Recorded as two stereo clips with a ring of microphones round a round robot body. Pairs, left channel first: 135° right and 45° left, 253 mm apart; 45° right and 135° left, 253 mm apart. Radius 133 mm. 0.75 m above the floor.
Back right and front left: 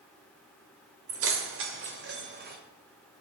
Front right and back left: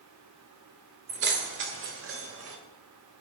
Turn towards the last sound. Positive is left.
turn(degrees=100)